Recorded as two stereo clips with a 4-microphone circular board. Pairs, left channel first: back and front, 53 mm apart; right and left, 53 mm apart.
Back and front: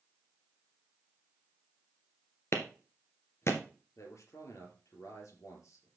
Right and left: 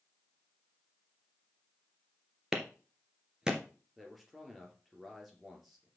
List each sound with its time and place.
2.5 s a clap: 165° left, 2.0 m
4.0 s a man speaking: straight behind, 3 m